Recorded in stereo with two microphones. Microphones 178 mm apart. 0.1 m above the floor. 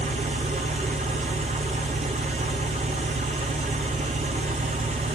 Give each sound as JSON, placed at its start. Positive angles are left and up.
{"t": 0.0, "sound": "an engine running", "side_deg": -45, "distance_m": 0.7}